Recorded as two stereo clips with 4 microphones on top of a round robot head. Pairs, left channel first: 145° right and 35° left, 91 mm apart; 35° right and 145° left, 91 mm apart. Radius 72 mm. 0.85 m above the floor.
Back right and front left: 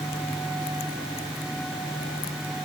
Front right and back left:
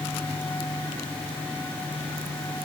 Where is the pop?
I don't hear a pop.